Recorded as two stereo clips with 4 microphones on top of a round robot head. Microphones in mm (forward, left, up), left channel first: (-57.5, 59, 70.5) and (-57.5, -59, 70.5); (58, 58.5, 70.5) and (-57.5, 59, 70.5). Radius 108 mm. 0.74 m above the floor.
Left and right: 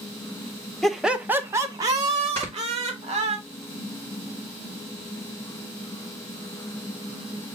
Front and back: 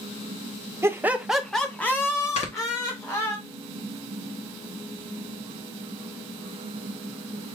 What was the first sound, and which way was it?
Laughter, 175° left.